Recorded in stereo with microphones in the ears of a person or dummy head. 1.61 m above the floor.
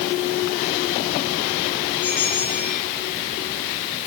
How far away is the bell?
About 4.5 m.